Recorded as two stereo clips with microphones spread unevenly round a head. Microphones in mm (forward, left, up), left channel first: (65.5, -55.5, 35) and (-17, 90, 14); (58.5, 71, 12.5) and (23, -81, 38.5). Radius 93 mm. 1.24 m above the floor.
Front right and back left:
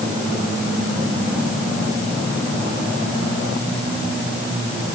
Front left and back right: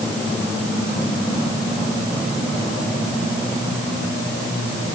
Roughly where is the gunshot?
No gunshot in this recording.